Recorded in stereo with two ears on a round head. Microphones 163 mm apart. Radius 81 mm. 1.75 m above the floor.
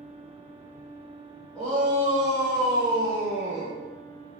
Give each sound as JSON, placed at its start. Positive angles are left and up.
{"t": 1.6, "sound": "a shout", "side_deg": 5, "distance_m": 2.0}